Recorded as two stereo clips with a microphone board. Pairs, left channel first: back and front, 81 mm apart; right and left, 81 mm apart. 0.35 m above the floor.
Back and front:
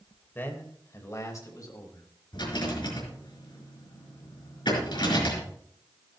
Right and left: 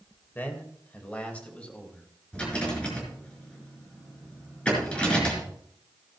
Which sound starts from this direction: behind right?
A man speaking, at 0.3 s.